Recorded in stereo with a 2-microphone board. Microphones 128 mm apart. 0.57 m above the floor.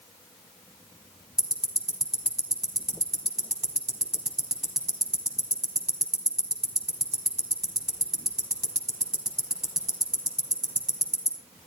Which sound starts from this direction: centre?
Ticking, at 1.4 s.